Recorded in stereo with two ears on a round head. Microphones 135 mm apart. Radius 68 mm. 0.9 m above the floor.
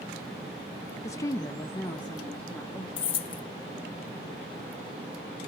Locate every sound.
1.0 s a woman speaking: 20° left (ahead or behind), 0.6 m; by 2.9 s 10° left (ahead or behind), 1.6 m
3.0 s keys jangling: 40° left (ahead or behind), 0.6 m